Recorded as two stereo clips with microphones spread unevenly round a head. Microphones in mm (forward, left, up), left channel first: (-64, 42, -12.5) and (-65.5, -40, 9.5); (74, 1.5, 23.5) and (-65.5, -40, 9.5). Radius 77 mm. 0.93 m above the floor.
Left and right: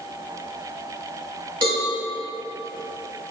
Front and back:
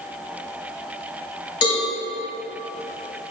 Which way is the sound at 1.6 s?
45° right.